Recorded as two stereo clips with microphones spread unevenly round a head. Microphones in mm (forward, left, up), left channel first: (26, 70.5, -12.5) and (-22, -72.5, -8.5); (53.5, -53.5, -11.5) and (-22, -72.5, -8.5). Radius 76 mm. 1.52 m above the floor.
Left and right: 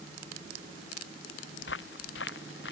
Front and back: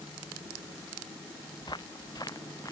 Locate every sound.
1.6 s footsteps: 80° left; by 2.7 s 85° left